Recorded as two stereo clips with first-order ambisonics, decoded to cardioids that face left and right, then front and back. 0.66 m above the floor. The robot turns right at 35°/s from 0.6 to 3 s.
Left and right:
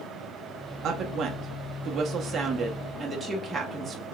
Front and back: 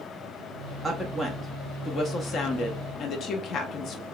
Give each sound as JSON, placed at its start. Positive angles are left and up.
{"t": 0.8, "sound": "a woman speaking", "azimuth_deg": -95, "distance_m": 0.7}